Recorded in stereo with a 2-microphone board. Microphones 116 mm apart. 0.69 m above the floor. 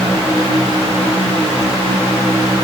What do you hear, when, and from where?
Only background noise.